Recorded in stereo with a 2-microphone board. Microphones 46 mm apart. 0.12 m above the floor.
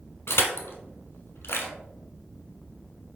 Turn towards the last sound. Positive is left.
turn(degrees=65)  # may be behind; listen again after turning